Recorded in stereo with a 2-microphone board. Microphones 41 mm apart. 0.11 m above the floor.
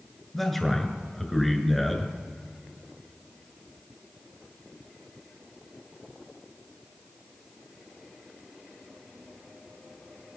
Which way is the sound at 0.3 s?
5° left (ahead or behind).